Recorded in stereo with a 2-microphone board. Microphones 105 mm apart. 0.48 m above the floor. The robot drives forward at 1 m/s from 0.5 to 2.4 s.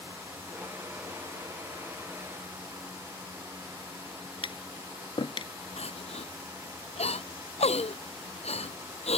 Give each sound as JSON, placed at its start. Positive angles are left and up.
{"t": 4.4, "sound": "tapping", "side_deg": 60}
{"t": 5.8, "sound": "crying", "side_deg": 90}